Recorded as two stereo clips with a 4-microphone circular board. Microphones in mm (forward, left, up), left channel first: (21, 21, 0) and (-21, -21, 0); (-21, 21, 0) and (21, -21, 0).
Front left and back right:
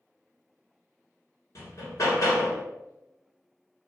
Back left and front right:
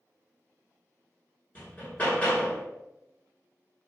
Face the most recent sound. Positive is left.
turn(degrees=70)